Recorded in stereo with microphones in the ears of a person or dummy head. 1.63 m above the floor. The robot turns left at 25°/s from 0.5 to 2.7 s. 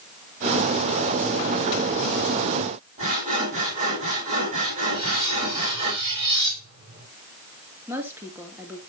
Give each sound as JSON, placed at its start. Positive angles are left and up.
{"t": 3.0, "sound": "sawing", "side_deg": -40, "distance_m": 7.5}
{"t": 4.9, "sound": "cutlery clinking", "side_deg": -25, "distance_m": 6.5}
{"t": 7.9, "sound": "a woman speaking", "side_deg": -15, "distance_m": 3.0}